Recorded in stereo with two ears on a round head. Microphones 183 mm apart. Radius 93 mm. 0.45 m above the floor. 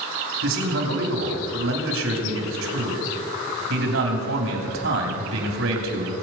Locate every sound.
0.4 s a man speaking: 70° right (ahead or behind), 3 m